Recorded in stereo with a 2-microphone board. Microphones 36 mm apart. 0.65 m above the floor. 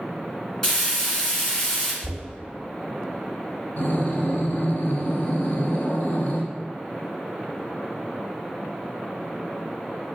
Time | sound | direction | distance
0.6 | frying | 10° left (ahead or behind) | 1.5 m
2.0 | knocking | 50° left (ahead or behind) | 1.7 m
3.8 | breathing | 55° left (ahead or behind) | 1.0 m